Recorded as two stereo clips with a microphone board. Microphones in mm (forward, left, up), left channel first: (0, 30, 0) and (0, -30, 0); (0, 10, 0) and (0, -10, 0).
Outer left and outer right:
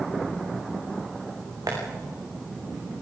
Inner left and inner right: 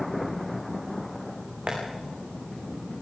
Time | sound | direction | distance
1.7 | tapping | 80° right | 8 m